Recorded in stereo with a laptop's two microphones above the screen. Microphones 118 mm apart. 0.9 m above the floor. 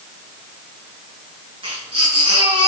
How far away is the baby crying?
About 6.5 m.